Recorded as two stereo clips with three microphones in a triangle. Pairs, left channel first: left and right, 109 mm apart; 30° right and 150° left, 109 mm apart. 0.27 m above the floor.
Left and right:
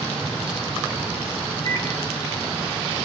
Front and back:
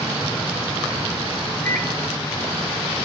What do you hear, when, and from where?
1.6 s a microwave: 40° left, 3.5 m